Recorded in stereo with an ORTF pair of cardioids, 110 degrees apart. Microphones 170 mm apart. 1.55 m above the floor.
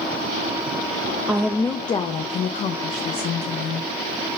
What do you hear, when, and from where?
1.3 s a woman speaking: 5° right, 0.5 m; by 3.9 s 60° left, 1.5 m